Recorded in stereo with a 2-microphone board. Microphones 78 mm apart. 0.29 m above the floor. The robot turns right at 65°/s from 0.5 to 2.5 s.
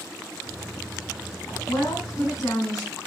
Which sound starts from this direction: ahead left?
A woman speaking, at 1.7 s.